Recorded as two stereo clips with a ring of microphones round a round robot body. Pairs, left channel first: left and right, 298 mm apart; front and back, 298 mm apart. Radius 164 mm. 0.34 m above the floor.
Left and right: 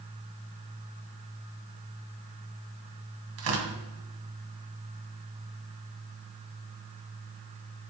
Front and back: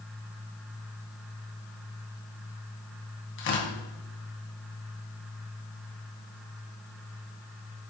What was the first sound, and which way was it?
Tearing paper, 55° right.